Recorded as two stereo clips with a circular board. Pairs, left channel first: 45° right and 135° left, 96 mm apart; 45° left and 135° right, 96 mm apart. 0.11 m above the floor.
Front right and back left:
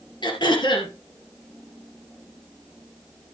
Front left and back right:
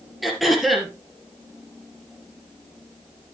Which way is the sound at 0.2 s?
45° right.